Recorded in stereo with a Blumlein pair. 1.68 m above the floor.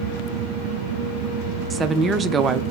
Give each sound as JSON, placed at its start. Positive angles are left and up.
{"t": 1.7, "sound": "a woman speaking", "azimuth_deg": -20, "distance_m": 0.6}